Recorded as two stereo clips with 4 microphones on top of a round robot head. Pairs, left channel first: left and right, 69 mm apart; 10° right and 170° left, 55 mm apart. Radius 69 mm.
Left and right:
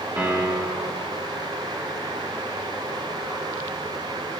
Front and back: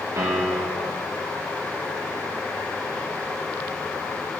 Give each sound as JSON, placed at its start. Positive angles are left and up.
{"t": 0.2, "sound": "a piano", "azimuth_deg": -160, "distance_m": 2.5}